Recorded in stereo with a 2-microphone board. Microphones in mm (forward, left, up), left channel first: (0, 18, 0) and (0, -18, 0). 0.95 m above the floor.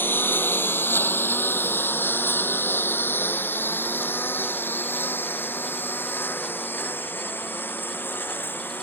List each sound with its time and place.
0.0 s a lawn mower: 80° left; by 8.8 s 70° left (ahead or behind)